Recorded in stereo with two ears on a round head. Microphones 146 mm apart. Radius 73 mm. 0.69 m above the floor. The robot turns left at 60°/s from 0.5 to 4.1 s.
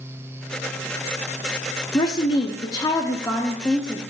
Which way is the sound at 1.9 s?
25° left (ahead or behind).